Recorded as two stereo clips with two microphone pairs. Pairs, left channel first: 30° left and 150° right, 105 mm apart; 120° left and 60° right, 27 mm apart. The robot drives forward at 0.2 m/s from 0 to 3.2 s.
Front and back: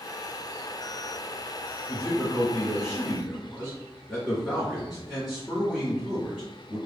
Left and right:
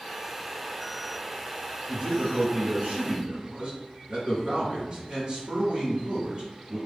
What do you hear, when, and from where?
1.9 s a man speaking: 45° right, 1.9 m; by 6.8 s 60° right, 1.8 m